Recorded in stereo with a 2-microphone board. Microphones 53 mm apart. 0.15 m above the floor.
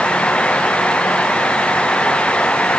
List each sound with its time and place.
Only background noise.